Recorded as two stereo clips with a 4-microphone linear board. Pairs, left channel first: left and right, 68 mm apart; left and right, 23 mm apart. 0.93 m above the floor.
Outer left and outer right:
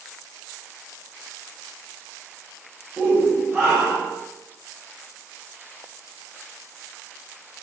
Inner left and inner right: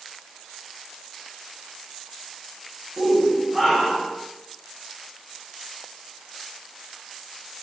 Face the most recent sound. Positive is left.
turn(degrees=0)  # may be behind; listen again after turning